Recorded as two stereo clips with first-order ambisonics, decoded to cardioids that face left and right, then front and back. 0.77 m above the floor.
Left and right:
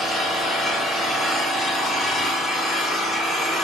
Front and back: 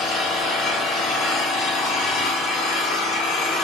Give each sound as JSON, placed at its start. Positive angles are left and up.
{"t": 0.0, "sound": "an engine running", "azimuth_deg": 20, "distance_m": 2.0}